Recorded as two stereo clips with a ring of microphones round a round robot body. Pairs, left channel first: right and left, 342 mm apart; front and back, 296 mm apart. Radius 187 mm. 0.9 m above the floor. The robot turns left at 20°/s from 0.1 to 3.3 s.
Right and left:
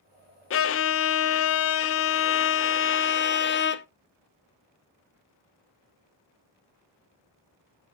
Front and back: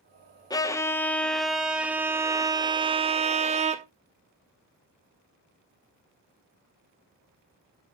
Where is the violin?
70° right, 0.7 m; by 3.9 s 125° right, 0.7 m.